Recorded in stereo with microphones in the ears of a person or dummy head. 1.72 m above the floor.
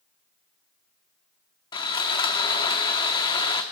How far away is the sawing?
About 0.6 m.